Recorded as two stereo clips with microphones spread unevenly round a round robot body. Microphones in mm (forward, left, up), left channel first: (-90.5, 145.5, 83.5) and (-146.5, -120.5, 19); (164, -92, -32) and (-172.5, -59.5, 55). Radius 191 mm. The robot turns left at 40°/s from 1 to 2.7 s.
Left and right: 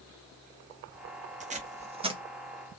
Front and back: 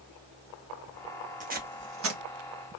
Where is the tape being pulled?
110° right, 1.0 m; by 2.2 s 140° right, 1.0 m.